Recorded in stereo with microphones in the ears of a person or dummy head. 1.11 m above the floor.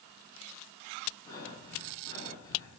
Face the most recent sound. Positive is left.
turn(degrees=15)  # may be behind; listen again after turning